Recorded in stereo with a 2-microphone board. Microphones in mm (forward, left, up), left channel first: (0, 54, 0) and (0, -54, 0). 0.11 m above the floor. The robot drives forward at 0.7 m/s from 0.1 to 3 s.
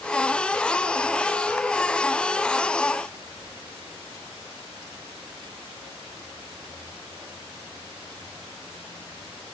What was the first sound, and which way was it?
Only background noise.